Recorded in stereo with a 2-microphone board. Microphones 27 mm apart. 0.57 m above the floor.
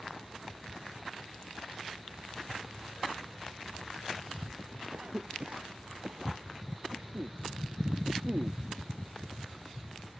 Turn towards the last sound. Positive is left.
turn(degrees=-60)  # may be behind; listen again after turning